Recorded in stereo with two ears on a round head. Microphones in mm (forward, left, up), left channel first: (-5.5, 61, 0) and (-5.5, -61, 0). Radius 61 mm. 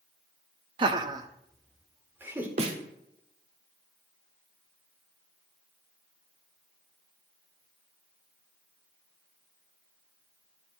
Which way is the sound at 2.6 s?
50° right (ahead or behind).